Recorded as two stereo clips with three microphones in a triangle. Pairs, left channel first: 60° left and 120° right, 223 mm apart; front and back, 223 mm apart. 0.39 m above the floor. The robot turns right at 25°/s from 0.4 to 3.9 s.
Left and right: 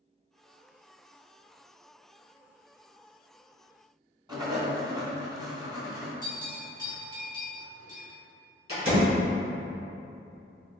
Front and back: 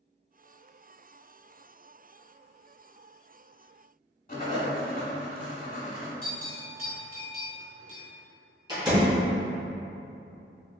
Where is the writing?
50° right, 1.0 m.